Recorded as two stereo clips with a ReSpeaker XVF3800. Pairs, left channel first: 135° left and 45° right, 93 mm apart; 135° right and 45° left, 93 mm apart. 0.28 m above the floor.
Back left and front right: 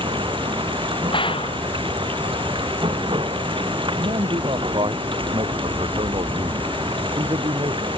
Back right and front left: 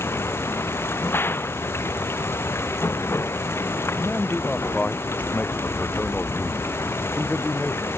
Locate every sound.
0.0 s running water: 70° right
1.1 s a gunshot: 160° left
4.0 s a man speaking: 60° right